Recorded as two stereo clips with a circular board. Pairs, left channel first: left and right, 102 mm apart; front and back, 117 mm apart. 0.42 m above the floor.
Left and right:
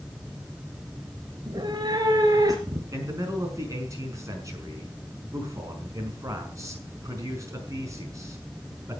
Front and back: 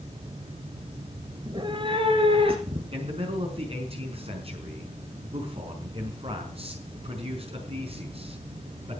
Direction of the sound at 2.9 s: 145° right.